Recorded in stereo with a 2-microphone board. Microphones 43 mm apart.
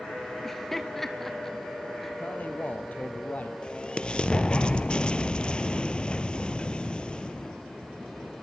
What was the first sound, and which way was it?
Laughter, 10° left (ahead or behind).